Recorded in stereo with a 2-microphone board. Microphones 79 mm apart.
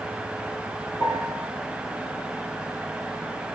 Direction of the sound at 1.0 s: 65° left (ahead or behind).